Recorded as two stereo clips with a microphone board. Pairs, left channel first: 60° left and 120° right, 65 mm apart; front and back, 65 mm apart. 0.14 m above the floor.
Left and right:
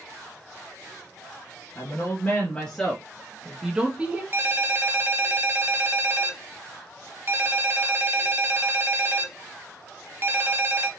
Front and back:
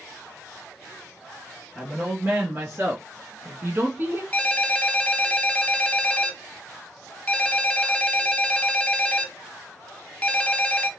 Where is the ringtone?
70° right, 1.0 m.